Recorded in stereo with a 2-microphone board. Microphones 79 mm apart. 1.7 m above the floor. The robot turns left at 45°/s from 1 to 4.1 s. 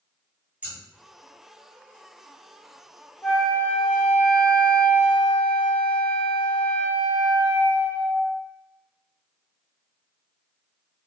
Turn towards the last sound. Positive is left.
turn(degrees=25)  # may be behind; listen again after turning